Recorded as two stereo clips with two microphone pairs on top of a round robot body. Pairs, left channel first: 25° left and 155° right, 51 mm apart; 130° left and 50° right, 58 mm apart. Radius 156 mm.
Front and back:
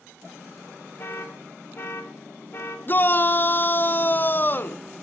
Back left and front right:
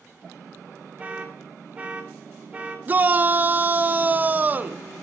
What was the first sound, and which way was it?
An alarm, straight ahead.